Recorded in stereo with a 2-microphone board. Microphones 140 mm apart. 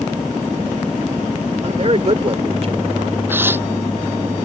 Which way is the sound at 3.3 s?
15° right (ahead or behind).